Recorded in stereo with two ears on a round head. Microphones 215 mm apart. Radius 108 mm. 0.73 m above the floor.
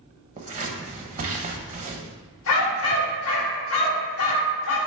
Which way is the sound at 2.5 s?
60° left (ahead or behind).